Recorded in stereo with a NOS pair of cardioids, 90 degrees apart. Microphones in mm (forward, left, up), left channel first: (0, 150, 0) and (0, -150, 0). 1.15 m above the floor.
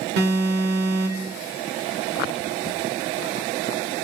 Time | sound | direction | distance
0.2 | an alarm | 55° right | 1.6 m